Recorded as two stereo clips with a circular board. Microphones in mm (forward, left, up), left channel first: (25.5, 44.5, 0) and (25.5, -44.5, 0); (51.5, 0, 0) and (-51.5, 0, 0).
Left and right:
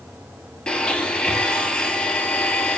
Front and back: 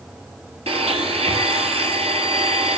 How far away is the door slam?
No door slam in this recording.